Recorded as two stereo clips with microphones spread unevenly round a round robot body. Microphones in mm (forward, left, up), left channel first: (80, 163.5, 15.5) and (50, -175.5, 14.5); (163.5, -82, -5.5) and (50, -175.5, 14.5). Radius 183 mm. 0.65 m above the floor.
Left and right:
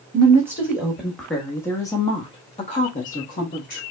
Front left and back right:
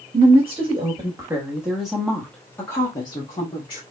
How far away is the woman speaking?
About 1.3 m.